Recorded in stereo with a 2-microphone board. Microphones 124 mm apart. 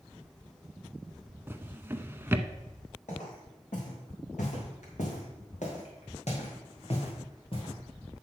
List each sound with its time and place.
1.5 s a drawer: 20° right (ahead or behind), 0.5 m
3.1 s footsteps: 85° left, 5 m; by 7.8 s 45° left (ahead or behind), 3.5 m